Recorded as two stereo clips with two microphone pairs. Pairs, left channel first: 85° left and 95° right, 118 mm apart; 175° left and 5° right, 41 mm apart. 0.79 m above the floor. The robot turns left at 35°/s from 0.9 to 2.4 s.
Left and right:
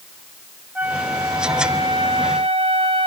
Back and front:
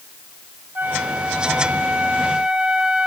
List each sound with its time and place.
0.8 s a flute: 20° right, 1.5 m; by 3.1 s 70° right, 1.5 m